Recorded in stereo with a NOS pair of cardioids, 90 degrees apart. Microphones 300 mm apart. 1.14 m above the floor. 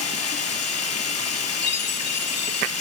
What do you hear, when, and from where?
0.0 s running water: 60° left, 4 m
1.6 s a chime: 55° left, 2 m